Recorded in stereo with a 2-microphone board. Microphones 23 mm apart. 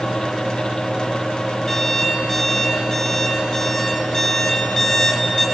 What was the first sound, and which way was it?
An alarm clock, 15° left (ahead or behind).